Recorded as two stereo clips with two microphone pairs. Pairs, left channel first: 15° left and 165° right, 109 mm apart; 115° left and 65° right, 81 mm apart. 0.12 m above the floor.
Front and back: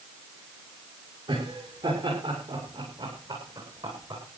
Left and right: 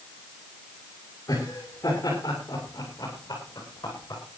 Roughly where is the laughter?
Behind.